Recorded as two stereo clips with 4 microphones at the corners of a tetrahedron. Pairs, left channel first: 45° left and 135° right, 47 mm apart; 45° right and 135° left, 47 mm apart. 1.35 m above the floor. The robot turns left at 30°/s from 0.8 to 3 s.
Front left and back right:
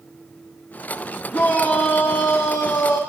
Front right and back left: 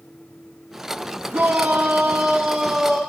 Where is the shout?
100° left, 0.7 m; by 3.0 s 45° left, 0.7 m.